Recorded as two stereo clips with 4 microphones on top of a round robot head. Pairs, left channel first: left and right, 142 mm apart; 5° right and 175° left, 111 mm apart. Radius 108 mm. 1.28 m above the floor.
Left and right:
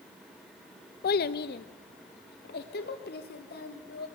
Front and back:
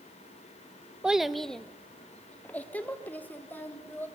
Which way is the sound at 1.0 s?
95° left.